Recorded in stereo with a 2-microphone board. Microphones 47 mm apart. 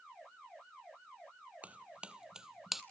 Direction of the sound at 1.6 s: 30° right (ahead or behind).